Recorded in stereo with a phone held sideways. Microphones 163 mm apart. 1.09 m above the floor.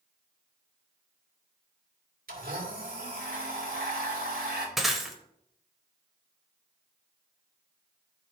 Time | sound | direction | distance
2.3 | a blender | 65° right (ahead or behind) | 2 m
4.8 | breaking glass | centre (ahead or behind) | 1.1 m